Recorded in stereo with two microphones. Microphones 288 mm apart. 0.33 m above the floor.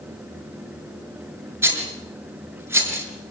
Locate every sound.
1.6 s a rattle: 10° right (ahead or behind), 5.5 m